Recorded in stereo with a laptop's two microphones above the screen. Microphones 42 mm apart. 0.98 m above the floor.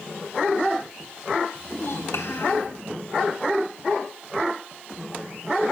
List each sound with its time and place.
1.6 s a child speaking: 75° left (ahead or behind), 3.5 m